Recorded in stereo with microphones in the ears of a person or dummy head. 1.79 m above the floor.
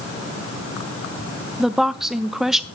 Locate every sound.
1.6 s a woman speaking: centre (ahead or behind), 0.8 m